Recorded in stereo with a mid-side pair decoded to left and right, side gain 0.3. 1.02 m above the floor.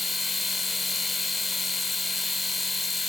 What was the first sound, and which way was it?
A machine running, 45° left.